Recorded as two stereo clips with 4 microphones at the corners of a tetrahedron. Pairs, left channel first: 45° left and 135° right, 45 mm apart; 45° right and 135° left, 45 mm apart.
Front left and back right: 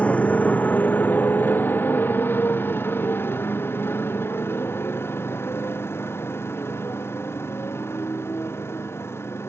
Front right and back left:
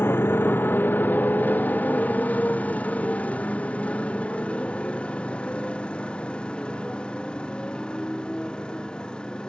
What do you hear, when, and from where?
0.0 s a motorcycle: 15° right; by 9.5 s 25° left